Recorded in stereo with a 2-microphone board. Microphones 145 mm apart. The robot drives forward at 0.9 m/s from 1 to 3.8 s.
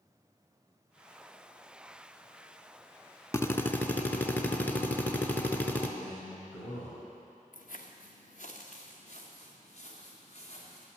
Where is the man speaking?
60° left (ahead or behind), 2.5 m.